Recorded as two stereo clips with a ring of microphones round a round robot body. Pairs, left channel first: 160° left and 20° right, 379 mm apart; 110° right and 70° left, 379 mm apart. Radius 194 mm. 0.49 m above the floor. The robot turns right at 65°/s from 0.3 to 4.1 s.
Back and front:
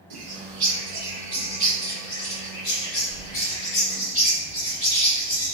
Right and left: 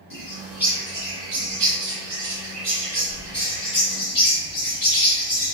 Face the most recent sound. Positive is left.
turn(degrees=-150)